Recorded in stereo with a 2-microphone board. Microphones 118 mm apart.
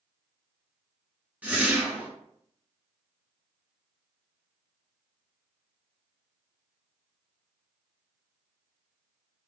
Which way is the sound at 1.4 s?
10° right (ahead or behind).